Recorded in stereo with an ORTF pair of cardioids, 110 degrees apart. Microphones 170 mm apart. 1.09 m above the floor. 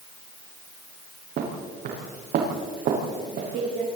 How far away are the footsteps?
About 6.5 m.